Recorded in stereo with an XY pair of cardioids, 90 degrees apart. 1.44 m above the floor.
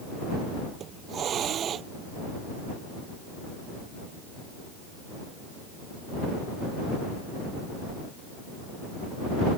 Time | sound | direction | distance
0.8 | a hiss | 65° right | ?